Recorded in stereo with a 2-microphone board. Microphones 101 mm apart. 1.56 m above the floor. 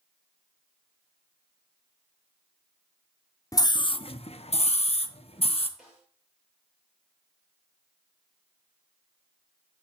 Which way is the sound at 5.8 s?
5° right (ahead or behind).